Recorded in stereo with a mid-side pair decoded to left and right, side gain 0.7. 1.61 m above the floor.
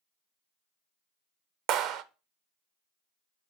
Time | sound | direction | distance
1.7 | a clap | 55° right | 0.6 m